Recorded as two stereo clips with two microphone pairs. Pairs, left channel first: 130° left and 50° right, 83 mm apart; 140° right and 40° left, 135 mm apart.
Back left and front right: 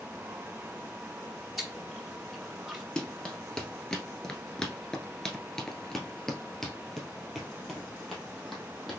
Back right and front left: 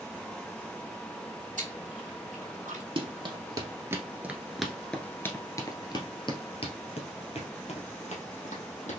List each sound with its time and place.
1.6 s chewing: 40° left, 1.7 m
3.0 s running footsteps: 50° left, 1.4 m; by 9.0 s 140° right, 2.5 m